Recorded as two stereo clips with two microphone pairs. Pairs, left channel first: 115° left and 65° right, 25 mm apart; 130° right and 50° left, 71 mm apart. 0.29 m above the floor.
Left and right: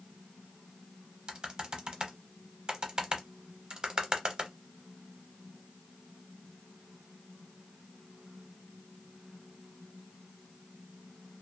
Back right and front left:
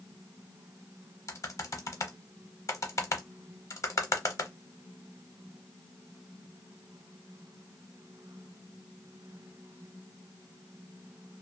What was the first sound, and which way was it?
Typing on a keyboard, 115° right.